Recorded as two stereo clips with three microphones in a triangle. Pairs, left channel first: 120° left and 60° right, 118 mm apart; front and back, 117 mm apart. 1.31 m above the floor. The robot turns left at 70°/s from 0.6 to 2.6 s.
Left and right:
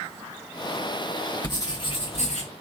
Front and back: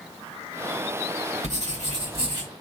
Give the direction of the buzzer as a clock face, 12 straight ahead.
I don't hear a buzzer.